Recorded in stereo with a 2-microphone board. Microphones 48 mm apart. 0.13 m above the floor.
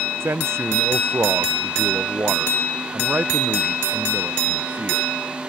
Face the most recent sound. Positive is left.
turn(degrees=-35)  # may be behind; listen again after turning